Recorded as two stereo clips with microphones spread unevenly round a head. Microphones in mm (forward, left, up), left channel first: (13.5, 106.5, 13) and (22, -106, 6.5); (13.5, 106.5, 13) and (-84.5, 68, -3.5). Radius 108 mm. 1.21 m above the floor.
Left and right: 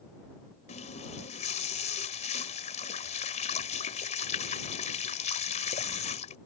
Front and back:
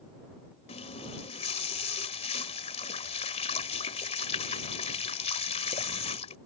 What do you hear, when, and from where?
0.7 s a running tap: 35° left